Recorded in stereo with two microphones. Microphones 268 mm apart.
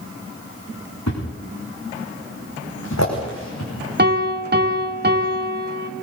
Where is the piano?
40° right (ahead or behind), 2.0 m.